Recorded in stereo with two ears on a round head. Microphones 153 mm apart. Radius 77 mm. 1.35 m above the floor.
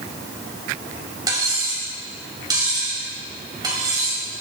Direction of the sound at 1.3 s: 20° right (ahead or behind).